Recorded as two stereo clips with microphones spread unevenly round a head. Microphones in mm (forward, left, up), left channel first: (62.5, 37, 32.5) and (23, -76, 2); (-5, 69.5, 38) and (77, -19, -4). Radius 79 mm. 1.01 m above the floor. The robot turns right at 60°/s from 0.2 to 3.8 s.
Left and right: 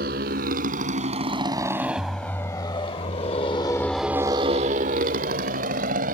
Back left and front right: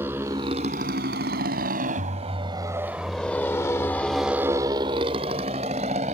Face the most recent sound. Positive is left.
turn(degrees=-105)